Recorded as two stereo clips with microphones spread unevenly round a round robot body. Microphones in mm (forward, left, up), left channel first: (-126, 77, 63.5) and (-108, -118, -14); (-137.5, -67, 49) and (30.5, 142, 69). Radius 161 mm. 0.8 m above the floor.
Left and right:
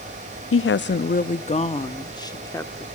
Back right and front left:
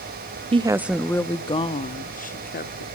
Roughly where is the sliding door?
I don't hear a sliding door.